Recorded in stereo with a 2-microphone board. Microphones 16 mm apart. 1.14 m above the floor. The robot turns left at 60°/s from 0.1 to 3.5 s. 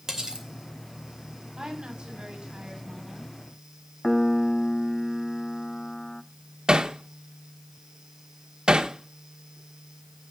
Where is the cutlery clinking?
30° right (ahead or behind), 3 m; by 0.5 s 55° right (ahead or behind), 3 m.